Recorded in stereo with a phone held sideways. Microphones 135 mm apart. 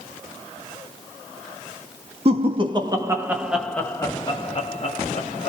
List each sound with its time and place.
2.2 s laughter: 45° right (ahead or behind), 1.0 m; by 5.5 s 60° left (ahead or behind), 1.1 m